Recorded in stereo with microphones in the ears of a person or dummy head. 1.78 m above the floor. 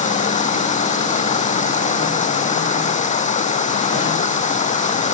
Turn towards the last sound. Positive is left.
turn(degrees=40)  # may be behind; listen again after turning